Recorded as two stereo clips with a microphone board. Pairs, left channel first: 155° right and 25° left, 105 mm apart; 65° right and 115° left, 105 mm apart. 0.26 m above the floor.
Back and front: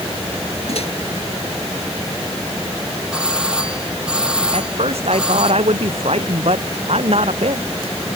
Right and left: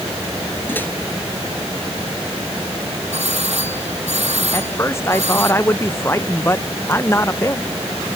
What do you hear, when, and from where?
0.7 s a microwave: 140° right
3.1 s a doorbell: 105° left
4.5 s a man speaking: straight ahead